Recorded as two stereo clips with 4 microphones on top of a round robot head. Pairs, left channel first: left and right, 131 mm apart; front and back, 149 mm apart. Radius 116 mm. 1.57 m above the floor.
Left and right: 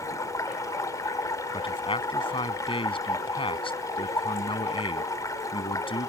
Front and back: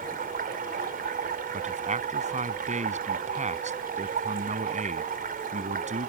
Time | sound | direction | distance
0.0 | running water | 155° left | ?
1.5 | a man speaking | 140° left | ?